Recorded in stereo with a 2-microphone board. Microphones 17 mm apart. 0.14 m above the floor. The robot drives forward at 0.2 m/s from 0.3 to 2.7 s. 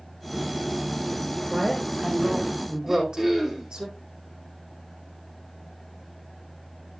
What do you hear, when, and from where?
1.5 s a woman speaking: 65° right (ahead or behind), 7 m; by 3.9 s 60° right (ahead or behind), 7 m
2.9 s throat clearing: 25° right (ahead or behind), 3.5 m